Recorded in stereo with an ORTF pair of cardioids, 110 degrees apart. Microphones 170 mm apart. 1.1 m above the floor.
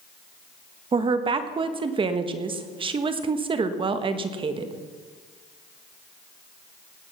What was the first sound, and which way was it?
A woman speaking, 30° right.